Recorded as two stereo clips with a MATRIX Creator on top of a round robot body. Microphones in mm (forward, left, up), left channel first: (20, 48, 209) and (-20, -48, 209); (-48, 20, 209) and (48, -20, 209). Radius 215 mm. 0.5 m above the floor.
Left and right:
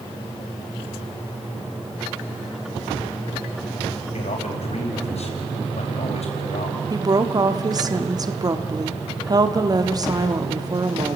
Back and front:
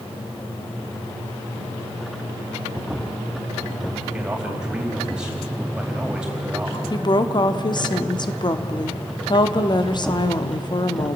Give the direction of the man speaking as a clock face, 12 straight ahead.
10 o'clock.